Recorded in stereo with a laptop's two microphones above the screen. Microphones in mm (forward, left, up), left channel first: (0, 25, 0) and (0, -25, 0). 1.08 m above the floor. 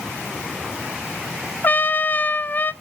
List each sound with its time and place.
1.6 s a trumpet: 40° left (ahead or behind), 0.5 m